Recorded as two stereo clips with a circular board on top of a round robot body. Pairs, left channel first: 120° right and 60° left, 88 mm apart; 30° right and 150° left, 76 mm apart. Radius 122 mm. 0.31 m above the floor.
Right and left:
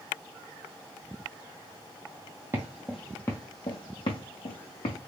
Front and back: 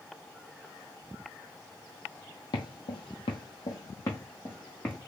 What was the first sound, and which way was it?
Footsteps, 5° right.